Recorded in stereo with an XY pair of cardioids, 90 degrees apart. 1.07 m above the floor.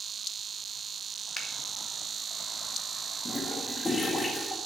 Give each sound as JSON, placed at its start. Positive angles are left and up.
{"t": 1.4, "sound": "a finger snap", "azimuth_deg": 20, "distance_m": 2.0}
{"t": 3.2, "sound": "a toilet flushing", "azimuth_deg": 25, "distance_m": 2.0}